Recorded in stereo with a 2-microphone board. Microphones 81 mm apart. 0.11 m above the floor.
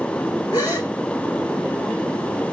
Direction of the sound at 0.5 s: 55° left (ahead or behind).